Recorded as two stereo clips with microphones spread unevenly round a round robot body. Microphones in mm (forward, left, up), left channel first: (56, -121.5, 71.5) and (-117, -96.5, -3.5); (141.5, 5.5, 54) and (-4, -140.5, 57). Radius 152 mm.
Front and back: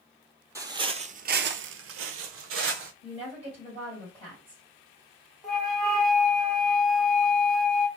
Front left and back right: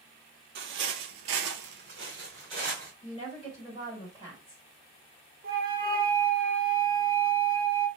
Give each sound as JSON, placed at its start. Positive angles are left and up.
{"t": 0.6, "sound": "footsteps", "azimuth_deg": -105, "distance_m": 0.7}
{"t": 3.0, "sound": "a woman speaking", "azimuth_deg": 100, "distance_m": 1.8}
{"t": 5.4, "sound": "a flute", "azimuth_deg": -135, "distance_m": 0.9}